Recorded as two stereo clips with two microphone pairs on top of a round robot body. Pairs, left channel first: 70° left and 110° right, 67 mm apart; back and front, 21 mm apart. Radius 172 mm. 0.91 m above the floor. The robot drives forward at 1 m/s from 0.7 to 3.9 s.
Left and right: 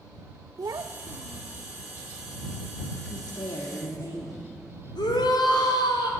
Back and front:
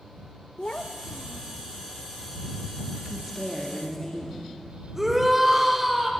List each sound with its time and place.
0.6 s a child speaking: 145° right, 0.6 m; by 1.6 s 165° right, 1.5 m
3.1 s a woman speaking: 80° left, 2 m; by 4.5 s 105° left, 2.5 m
5.0 s a shout: 75° left, 3.5 m